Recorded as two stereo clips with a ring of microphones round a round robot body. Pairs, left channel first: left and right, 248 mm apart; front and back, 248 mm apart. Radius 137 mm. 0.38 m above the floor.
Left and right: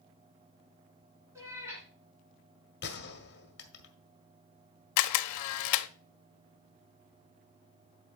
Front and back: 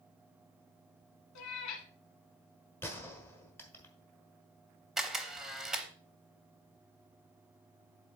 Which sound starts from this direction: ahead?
A cat meowing, at 1.4 s.